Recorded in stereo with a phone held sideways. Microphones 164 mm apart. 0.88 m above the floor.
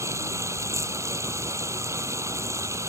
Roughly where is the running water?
Centre.